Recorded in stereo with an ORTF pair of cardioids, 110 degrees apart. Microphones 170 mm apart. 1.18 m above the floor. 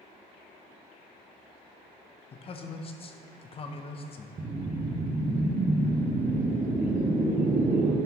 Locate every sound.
2.3 s a man speaking: 35° left, 0.8 m
4.4 s a whoosh: 30° right, 0.9 m